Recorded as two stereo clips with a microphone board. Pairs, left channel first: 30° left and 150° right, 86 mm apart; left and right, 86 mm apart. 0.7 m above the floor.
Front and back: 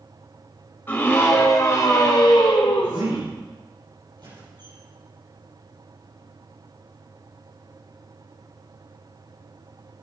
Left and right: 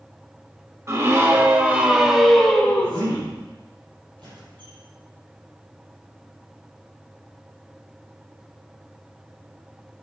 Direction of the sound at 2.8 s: 105° right.